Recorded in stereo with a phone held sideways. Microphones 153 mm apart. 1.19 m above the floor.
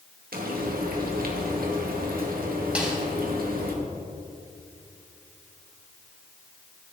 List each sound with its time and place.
0.3 s frying: 70° right (ahead or behind), 2 m
2.8 s a snare drum: 5° right (ahead or behind), 3 m